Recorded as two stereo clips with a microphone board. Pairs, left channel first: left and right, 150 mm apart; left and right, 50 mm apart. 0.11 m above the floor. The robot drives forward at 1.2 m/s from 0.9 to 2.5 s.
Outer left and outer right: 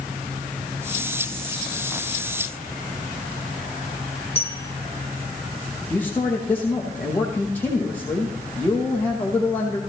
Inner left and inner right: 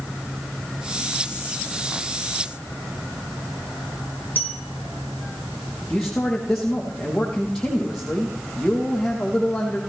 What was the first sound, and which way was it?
A bell, 40° left (ahead or behind).